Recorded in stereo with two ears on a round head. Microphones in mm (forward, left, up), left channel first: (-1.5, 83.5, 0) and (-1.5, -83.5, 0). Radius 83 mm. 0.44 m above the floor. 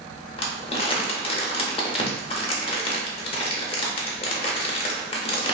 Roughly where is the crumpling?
Left.